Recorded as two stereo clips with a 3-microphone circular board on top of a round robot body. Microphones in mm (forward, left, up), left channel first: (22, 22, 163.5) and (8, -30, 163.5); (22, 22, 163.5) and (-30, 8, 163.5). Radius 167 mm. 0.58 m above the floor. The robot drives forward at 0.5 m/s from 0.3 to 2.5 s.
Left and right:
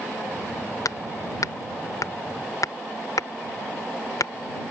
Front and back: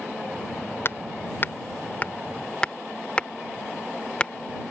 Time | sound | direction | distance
0.8 | hammering | 60° left | ?